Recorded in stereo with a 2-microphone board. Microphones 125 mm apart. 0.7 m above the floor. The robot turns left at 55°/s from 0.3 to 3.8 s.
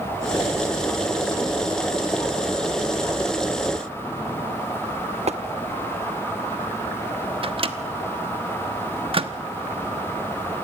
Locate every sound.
5.3 s tapping: 60° right (ahead or behind), 1.0 m
7.4 s a microwave: 50° right (ahead or behind), 1.1 m